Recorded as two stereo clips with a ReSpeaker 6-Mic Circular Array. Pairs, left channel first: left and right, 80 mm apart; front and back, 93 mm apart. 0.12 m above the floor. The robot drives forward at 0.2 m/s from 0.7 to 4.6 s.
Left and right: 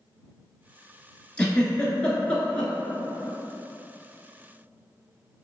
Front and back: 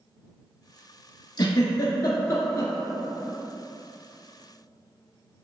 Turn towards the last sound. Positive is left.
turn(degrees=85)